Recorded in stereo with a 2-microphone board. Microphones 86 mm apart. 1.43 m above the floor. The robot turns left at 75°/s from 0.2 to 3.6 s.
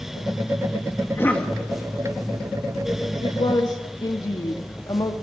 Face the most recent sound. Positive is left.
turn(degrees=50)  # may be behind; listen again after turning